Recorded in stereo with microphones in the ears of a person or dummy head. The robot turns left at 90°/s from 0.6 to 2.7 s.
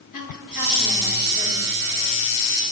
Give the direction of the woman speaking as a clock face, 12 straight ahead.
10 o'clock.